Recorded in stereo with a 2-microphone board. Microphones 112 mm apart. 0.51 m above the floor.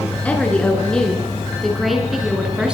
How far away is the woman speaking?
About 6 m.